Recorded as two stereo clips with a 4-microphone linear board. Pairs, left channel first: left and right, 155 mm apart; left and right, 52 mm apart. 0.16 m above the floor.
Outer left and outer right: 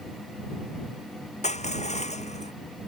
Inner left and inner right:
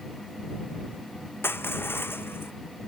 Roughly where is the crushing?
Left.